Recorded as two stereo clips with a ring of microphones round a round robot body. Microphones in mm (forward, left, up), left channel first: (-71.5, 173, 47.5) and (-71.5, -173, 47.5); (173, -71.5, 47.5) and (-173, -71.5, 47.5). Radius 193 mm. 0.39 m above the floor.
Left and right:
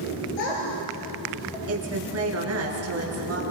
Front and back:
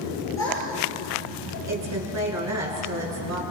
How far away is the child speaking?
About 5 m.